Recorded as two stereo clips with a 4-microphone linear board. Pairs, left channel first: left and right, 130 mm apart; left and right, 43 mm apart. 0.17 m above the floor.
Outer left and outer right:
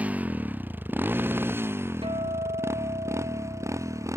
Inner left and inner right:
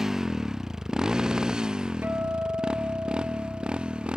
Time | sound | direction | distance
0.0 | a motorcycle | 10° right (ahead or behind) | ?
2.0 | a guitar | 45° right (ahead or behind) | ?